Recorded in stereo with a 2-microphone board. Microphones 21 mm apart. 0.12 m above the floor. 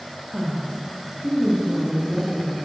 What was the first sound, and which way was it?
A woman speaking, 30° right (ahead or behind).